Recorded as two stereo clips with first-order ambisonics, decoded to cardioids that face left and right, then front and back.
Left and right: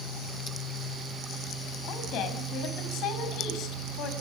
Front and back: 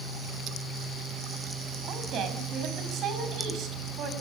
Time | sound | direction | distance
1.9 | a woman speaking | 130° left | 5.5 m